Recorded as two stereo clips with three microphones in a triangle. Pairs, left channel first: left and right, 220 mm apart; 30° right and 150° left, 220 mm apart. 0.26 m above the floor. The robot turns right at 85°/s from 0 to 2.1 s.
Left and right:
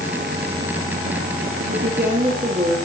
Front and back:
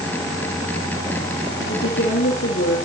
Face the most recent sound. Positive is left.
turn(degrees=-35)